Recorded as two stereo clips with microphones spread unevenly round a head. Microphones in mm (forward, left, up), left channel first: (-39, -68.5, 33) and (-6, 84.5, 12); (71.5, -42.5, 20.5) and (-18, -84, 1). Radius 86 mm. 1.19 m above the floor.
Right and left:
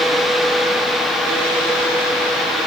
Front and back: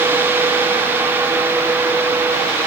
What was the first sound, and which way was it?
Only background noise.